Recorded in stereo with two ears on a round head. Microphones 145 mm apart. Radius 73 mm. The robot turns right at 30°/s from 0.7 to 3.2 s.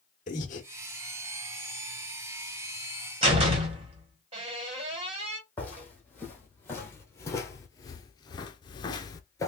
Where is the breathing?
50° left (ahead or behind), 1.2 m.